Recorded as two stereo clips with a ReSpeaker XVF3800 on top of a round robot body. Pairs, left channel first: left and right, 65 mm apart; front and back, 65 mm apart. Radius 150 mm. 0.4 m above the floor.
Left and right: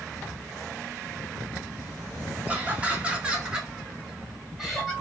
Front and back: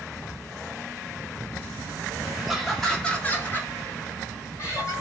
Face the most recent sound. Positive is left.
turn(degrees=0)